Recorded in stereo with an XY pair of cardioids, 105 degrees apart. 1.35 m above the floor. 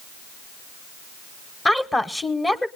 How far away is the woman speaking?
About 1.0 m.